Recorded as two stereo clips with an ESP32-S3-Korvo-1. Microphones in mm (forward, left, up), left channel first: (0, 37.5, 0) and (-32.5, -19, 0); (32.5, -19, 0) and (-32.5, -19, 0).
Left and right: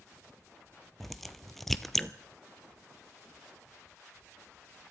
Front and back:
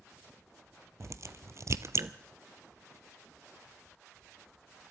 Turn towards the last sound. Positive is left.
turn(degrees=150)